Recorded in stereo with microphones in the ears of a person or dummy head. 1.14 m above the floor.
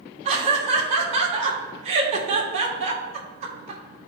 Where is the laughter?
35° right (ahead or behind), 2 m.